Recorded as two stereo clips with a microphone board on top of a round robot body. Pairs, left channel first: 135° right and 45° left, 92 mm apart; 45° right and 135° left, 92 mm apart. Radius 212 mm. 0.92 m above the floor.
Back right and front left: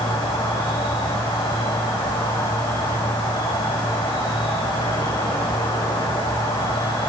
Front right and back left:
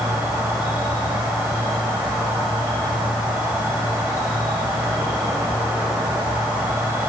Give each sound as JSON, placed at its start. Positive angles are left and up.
{"t": 0.0, "sound": "an insect", "azimuth_deg": -150, "distance_m": 4.5}